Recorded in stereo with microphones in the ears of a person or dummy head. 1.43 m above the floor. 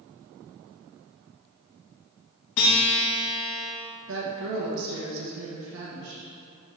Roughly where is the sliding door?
I don't hear a sliding door.